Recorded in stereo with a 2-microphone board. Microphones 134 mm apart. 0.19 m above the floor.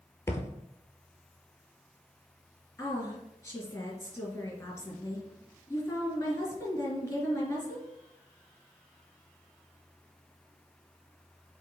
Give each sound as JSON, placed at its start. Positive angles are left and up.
{"t": 0.3, "sound": "a thud", "side_deg": 20, "distance_m": 1.1}
{"t": 2.8, "sound": "a woman speaking", "side_deg": 20, "distance_m": 2.5}